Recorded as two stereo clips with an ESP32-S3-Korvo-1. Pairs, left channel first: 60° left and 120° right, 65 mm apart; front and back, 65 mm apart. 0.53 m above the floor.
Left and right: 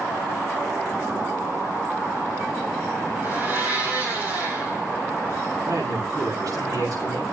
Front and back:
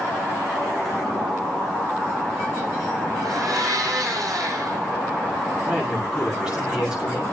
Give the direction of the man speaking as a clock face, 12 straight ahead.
3 o'clock.